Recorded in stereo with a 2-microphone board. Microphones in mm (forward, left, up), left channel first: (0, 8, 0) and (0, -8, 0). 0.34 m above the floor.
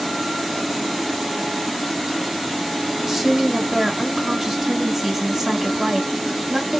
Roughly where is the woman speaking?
Centre.